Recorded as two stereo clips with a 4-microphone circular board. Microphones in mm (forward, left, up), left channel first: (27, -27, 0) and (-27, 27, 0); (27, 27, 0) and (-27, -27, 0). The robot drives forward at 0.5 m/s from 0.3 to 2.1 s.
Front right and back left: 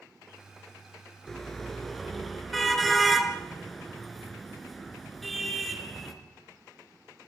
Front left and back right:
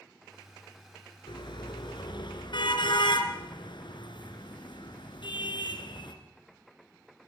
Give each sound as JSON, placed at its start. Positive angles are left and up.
{"t": 1.3, "sound": "a car horn", "azimuth_deg": 40, "distance_m": 3.0}